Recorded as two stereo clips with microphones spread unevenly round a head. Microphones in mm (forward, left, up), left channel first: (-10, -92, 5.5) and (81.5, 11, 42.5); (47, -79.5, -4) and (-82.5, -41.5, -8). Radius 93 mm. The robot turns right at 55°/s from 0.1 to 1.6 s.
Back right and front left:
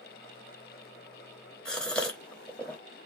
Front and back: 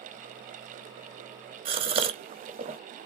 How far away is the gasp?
About 0.8 m.